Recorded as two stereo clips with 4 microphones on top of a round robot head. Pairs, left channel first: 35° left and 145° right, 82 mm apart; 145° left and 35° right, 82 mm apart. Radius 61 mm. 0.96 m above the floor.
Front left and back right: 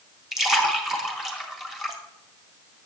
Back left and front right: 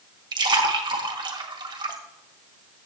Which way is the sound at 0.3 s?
60° right.